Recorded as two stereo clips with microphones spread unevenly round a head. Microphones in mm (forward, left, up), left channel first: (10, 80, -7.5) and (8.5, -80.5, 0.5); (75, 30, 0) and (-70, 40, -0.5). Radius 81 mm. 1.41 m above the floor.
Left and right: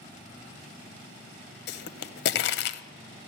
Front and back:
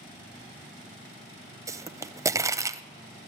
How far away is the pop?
About 0.6 m.